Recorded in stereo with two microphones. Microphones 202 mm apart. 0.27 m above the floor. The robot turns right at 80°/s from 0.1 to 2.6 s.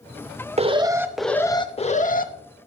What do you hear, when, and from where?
0.6 s an alarm: 50° right, 0.8 m; by 2.3 s 90° left, 0.8 m